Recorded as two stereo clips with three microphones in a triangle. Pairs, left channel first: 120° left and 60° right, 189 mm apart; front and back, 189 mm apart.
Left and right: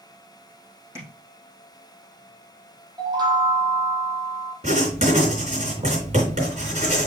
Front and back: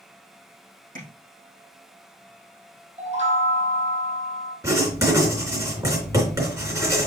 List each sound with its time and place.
0.9 s tapping: 135° right, 4.5 m
3.0 s a chime: 130° right, 1.9 m
4.6 s writing: 110° right, 3.5 m